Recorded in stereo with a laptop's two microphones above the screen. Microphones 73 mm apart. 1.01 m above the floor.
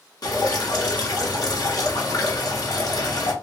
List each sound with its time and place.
0.2 s dripping: 60° left (ahead or behind), 1.0 m